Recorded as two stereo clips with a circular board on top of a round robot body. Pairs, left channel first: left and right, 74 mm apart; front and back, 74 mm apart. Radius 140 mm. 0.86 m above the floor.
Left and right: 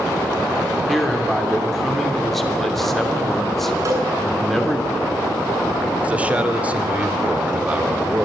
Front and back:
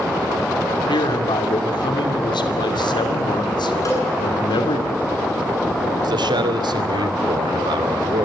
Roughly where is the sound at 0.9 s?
Ahead.